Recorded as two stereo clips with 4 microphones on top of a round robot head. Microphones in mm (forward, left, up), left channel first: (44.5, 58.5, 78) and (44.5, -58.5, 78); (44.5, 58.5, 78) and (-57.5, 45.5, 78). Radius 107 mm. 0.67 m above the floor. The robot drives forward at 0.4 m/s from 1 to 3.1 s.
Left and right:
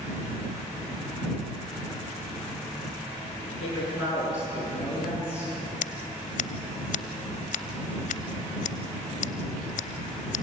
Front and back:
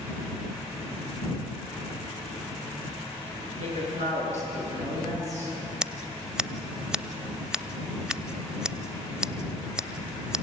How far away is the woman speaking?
About 7.5 m.